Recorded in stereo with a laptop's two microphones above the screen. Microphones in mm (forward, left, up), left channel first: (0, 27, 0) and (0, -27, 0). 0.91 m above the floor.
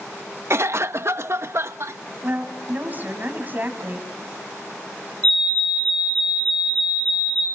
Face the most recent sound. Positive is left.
turn(degrees=20)  # may be behind; listen again after turning